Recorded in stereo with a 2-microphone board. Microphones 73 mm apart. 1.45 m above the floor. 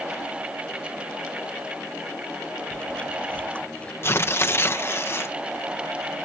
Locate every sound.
2.7 s chewing: 20° left (ahead or behind)
4.0 s tearing paper: 35° left (ahead or behind)